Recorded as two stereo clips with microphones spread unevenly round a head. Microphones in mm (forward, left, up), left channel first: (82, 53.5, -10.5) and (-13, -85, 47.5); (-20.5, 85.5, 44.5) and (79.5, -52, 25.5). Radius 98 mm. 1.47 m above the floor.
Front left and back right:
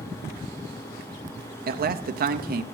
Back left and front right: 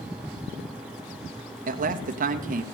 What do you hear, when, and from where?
1.7 s a man speaking: 80° right, 0.7 m